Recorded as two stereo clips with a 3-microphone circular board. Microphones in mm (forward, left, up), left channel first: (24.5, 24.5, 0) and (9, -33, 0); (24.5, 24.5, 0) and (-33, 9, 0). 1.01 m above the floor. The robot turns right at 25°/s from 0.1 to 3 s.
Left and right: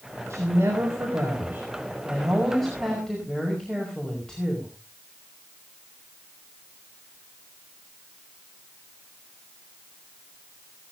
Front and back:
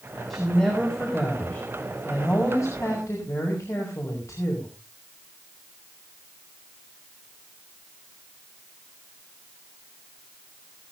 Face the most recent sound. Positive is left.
turn(degrees=-5)